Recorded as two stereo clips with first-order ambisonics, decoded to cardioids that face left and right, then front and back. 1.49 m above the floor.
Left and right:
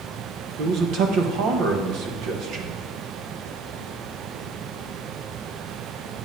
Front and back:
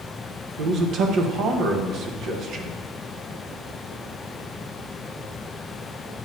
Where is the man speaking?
130° right, 1.0 m.